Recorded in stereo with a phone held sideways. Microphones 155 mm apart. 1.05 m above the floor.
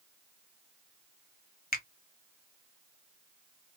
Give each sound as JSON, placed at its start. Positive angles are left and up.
{"t": 1.7, "sound": "a finger snap", "side_deg": 75, "distance_m": 0.7}